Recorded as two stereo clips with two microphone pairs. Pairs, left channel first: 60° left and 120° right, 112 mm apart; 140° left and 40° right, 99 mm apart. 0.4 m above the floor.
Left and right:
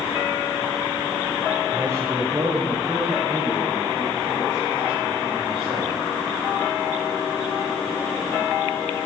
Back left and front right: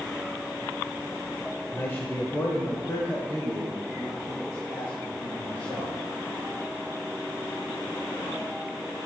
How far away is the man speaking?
About 1.3 m.